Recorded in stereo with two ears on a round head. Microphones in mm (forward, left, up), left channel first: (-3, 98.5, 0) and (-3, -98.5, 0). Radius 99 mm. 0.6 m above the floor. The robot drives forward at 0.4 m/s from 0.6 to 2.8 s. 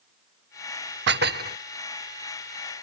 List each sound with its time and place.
1.1 s dishes clattering: 50° right (ahead or behind); by 1.6 s 40° right (ahead or behind)